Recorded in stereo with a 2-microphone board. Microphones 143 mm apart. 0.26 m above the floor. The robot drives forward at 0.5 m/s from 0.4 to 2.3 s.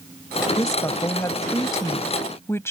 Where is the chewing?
No chewing in this recording.